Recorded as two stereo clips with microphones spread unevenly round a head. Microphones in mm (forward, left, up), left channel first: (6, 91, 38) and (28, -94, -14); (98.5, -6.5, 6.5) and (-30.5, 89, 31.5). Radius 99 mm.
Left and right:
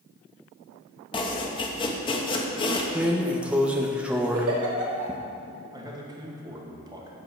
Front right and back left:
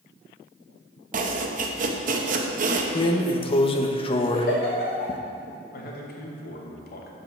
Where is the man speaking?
15° right, 2 m.